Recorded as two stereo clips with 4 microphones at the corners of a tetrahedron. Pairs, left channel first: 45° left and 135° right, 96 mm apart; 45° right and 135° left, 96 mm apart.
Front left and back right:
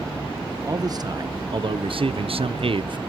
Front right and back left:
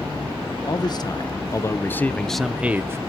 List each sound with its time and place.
0.7 s a man speaking: 85° right, 1.6 m; by 3.0 s 165° right, 0.9 m